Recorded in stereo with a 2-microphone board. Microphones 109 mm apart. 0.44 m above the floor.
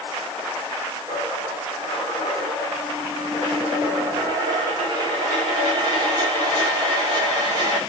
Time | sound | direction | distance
1.1 | a dropped coin | 35° right (ahead or behind) | 7 m